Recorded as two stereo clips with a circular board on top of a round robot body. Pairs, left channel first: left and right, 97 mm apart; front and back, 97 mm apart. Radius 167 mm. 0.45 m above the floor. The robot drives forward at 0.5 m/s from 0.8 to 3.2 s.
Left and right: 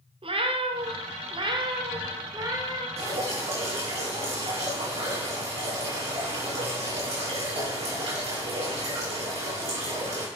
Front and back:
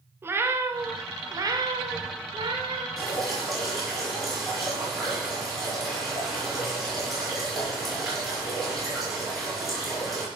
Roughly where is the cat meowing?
Behind right.